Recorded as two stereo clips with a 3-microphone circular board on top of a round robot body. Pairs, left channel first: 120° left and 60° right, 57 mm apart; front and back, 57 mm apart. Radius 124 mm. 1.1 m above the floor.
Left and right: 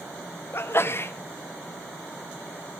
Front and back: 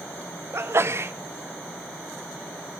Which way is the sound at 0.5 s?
155° left.